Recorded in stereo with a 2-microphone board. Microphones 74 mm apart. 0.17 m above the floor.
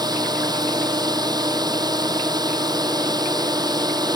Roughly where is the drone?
Right.